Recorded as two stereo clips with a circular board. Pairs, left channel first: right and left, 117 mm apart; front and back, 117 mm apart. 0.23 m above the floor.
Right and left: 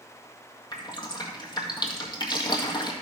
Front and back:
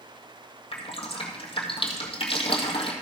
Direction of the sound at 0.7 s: 40° right.